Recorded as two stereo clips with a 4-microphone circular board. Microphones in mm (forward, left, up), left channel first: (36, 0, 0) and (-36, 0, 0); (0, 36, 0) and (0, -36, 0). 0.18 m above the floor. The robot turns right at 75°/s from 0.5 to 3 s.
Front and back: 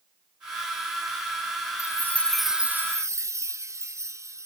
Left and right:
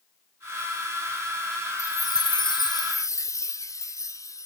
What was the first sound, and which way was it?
A chime, 45° left.